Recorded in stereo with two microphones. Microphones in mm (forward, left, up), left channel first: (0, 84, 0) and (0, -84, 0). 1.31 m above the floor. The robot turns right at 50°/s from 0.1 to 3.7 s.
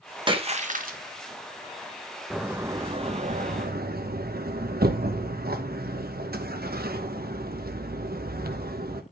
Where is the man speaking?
No man speaking in this recording.